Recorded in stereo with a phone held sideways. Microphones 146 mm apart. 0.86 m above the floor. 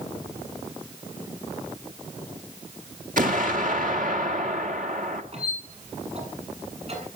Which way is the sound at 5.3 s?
50° right (ahead or behind).